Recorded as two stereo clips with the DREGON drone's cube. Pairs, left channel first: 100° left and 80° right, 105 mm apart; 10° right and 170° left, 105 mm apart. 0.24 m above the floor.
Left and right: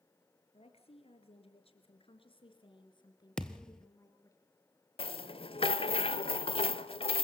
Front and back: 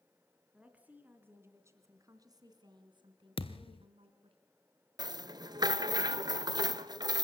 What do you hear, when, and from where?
0.5 s a woman speaking: 90° left, 3 m; by 4.4 s 160° left, 3 m
3.4 s a thud: 15° left, 1.1 m
5.0 s a rattle: 125° left, 0.6 m